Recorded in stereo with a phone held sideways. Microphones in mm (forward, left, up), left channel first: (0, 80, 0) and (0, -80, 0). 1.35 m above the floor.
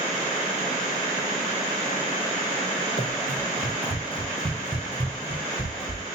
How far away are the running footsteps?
About 3 m.